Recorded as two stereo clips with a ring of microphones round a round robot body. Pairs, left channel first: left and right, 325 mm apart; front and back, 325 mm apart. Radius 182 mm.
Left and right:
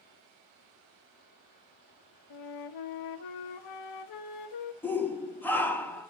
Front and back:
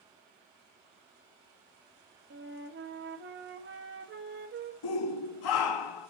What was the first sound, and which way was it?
A flute, 120° left.